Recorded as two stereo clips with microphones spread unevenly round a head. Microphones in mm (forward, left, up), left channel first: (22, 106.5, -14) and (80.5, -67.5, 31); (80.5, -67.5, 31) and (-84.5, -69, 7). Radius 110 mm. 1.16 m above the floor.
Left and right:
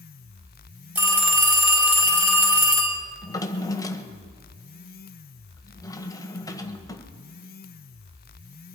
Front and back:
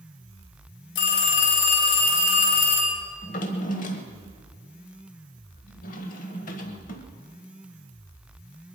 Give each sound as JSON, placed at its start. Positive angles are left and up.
{"t": 0.9, "sound": "a phone ringing", "azimuth_deg": 5, "distance_m": 4.0}
{"t": 3.2, "sound": "a drawer", "azimuth_deg": 30, "distance_m": 1.4}